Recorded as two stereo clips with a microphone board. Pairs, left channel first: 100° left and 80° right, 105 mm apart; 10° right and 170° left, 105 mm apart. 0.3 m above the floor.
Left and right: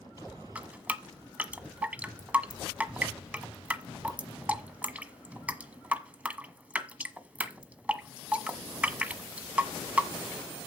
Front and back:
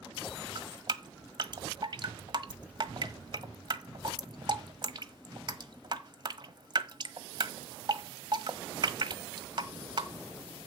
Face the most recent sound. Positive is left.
turn(degrees=-155)